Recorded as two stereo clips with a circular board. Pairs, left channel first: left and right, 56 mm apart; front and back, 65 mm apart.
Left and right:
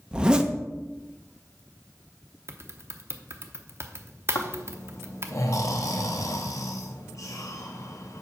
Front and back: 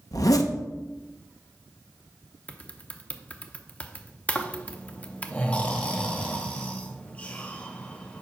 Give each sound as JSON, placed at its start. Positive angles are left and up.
{"t": 0.1, "sound": "a zipper", "azimuth_deg": -20, "distance_m": 0.7}
{"t": 2.5, "sound": "typing on a keyboard", "azimuth_deg": -60, "distance_m": 0.7}
{"t": 4.3, "sound": "snoring", "azimuth_deg": 70, "distance_m": 0.9}